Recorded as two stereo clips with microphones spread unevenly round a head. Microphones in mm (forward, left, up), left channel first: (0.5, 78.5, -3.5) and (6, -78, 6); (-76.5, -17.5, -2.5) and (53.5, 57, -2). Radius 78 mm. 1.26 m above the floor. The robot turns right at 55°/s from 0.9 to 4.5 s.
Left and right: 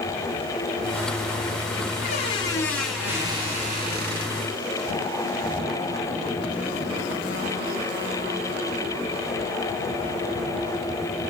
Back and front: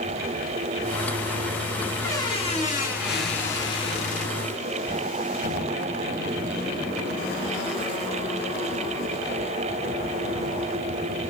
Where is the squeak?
135° left, 7.5 m; by 4.5 s 90° right, 7.5 m.